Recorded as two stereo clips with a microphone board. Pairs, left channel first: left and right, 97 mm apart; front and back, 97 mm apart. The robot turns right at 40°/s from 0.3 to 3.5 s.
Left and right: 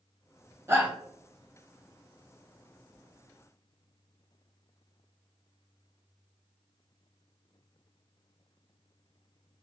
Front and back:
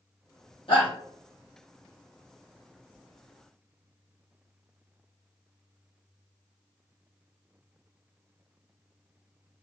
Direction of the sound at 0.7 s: 25° right.